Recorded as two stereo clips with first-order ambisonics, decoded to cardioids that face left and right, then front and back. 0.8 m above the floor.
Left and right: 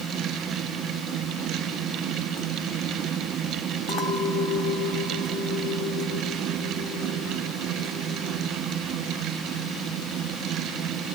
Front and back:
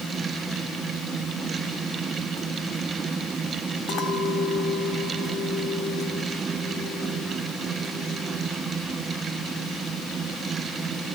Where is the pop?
No pop in this recording.